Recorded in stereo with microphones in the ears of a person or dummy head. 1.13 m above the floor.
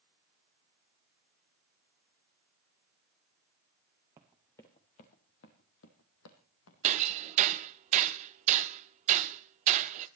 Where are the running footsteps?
10° right (ahead or behind), 1.2 m; by 7.6 s 70° left (ahead or behind), 3.5 m.